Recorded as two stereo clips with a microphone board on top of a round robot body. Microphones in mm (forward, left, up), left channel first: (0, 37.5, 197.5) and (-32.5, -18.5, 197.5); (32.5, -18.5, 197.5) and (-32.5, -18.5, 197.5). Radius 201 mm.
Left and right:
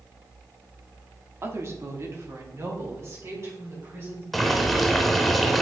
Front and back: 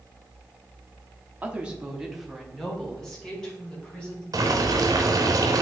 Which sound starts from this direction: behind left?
Boiling, at 4.3 s.